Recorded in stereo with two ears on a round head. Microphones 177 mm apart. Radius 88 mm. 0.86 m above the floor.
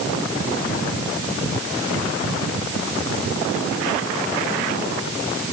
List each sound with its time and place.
Only background noise.